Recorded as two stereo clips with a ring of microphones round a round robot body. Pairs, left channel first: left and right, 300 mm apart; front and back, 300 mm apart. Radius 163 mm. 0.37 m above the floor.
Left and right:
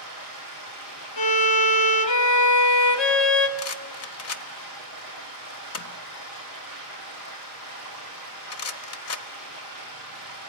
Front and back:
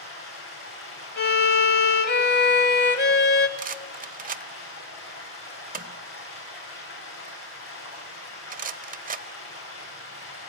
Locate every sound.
0.0 s running water: 45° left, 10 m
1.2 s a violin: 55° left, 1.5 m
3.6 s a rattle: 120° left, 1.2 m